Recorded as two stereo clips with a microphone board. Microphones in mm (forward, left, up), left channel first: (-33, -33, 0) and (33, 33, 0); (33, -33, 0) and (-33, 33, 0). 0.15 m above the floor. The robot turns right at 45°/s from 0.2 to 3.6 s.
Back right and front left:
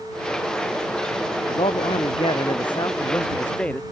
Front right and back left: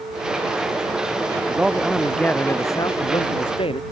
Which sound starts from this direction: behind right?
A man speaking, at 1.5 s.